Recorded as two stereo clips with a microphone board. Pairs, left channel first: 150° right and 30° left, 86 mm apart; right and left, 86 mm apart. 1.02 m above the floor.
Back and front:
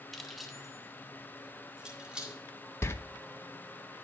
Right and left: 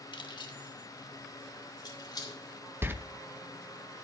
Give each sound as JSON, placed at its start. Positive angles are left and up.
{"t": 0.1, "sound": "keys jangling", "azimuth_deg": -65, "distance_m": 1.2}
{"t": 2.8, "sound": "a door slam", "azimuth_deg": 155, "distance_m": 0.6}